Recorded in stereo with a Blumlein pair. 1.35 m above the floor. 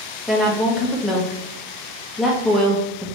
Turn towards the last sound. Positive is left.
turn(degrees=0)